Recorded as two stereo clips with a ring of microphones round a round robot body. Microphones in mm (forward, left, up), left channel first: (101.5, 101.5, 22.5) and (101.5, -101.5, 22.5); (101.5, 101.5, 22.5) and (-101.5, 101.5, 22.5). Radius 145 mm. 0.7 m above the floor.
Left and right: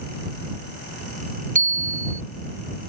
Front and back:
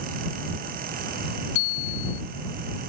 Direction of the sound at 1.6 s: 40° right.